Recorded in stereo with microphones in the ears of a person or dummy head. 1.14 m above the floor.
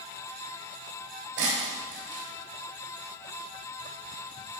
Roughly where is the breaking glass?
Right.